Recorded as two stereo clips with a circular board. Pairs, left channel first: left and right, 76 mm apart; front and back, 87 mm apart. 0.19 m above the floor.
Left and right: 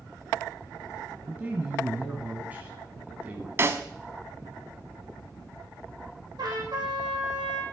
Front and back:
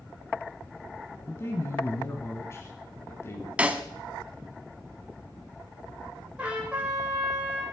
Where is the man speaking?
35° right, 1.3 m.